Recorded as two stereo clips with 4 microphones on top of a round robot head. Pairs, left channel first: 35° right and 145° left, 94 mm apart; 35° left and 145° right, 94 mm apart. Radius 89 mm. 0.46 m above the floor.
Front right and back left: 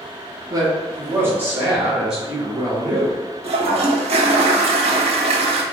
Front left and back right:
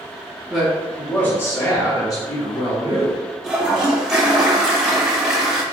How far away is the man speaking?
About 1.2 m.